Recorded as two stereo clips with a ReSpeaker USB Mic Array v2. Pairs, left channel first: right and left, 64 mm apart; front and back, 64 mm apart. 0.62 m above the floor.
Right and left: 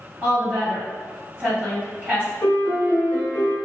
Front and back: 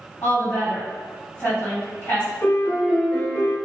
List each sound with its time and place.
0.2 s a woman speaking: 35° left, 2.0 m
2.4 s a piano: 45° right, 1.0 m